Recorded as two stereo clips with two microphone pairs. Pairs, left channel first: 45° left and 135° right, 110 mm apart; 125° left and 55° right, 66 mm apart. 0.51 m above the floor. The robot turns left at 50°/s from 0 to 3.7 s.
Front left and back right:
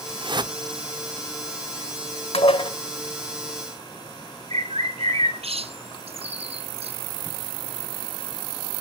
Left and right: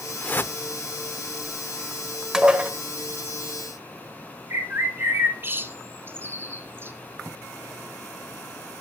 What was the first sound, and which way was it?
A whoosh, 170° right.